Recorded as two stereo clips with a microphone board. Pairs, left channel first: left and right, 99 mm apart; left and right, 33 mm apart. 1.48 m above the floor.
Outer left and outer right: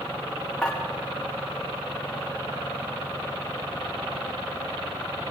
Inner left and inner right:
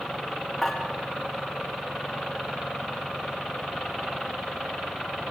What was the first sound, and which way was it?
Dishes clattering, 10° left (ahead or behind).